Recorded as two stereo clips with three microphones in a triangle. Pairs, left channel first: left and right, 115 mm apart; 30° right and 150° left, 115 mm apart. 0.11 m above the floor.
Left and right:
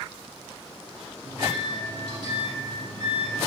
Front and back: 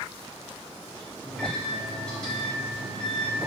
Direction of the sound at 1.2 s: 105° right.